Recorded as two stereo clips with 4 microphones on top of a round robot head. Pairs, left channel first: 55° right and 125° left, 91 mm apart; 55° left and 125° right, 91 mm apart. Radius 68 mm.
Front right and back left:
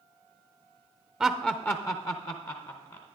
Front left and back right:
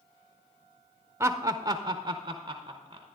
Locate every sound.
1.2 s laughter: 160° right, 0.6 m; by 3.1 s 80° right, 1.2 m